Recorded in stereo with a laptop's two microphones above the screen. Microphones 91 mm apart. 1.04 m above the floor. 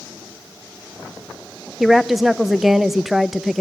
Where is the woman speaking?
Centre (ahead or behind), 0.6 m.